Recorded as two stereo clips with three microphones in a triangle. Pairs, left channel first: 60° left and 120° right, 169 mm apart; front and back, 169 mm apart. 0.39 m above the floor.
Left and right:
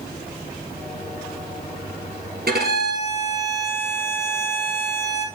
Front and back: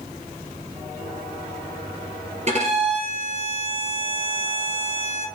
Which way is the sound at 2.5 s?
135° right.